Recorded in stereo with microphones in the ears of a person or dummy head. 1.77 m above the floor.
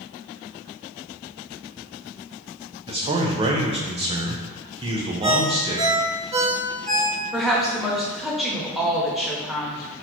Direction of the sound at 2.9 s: 25° right (ahead or behind).